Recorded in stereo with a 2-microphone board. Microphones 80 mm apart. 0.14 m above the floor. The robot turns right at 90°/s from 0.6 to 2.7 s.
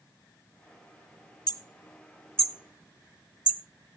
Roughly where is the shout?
I don't hear a shout.